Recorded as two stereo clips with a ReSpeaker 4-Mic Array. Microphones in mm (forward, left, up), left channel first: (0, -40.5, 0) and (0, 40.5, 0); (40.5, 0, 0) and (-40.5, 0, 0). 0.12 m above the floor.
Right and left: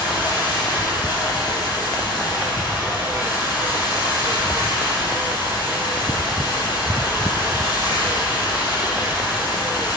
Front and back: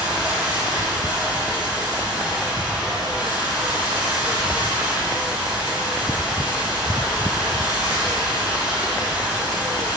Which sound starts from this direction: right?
Running water, at 0.0 s.